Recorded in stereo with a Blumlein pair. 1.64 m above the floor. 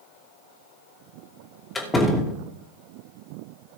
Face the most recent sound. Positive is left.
turn(degrees=15)